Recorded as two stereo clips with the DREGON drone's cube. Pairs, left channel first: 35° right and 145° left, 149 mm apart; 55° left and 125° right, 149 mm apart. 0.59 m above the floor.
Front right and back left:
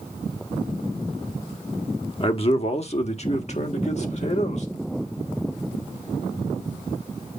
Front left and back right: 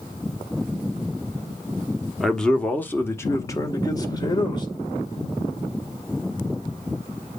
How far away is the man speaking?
About 1.1 m.